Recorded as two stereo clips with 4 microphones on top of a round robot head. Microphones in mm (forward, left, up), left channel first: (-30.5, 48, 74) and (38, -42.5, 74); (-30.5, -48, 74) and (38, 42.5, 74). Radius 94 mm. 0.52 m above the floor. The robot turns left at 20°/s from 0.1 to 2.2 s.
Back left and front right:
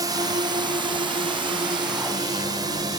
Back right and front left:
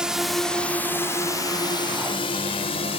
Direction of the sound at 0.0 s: 30° right.